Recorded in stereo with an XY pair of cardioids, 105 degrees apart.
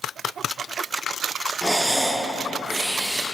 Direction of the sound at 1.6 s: 10° right.